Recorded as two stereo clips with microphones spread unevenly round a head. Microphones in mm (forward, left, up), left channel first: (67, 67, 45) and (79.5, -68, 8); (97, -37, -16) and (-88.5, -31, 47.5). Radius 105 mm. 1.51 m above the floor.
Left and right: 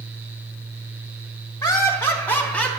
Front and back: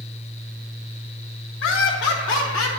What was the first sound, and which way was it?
Laughter, 25° left.